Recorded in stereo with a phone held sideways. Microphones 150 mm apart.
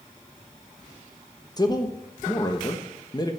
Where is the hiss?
No hiss in this recording.